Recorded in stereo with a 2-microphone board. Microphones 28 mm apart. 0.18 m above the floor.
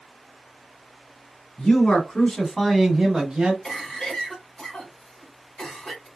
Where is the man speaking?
45° left (ahead or behind), 1.6 m; by 3.5 s 35° right (ahead or behind), 1.3 m.